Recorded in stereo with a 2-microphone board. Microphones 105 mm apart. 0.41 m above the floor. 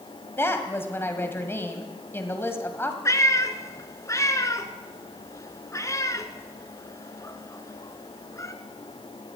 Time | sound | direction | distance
0.4 | a woman speaking | 25° left (ahead or behind) | 1.9 m
3.0 | a cat meowing | 30° left (ahead or behind) | 1.1 m